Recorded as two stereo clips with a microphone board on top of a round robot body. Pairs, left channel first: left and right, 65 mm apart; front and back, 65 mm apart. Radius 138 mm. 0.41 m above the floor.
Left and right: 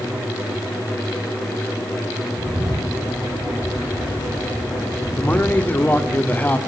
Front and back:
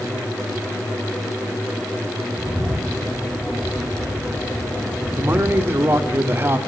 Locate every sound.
2.4 s a bird: 105° right, 9.5 m
5.2 s a man speaking: 145° left, 1.8 m